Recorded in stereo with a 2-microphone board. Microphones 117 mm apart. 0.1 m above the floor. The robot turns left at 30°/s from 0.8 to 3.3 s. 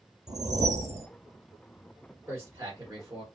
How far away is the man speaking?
About 1.8 m.